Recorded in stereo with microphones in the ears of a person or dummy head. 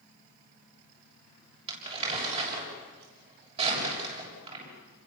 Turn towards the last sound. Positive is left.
turn(degrees=-35)  # may be behind; listen again after turning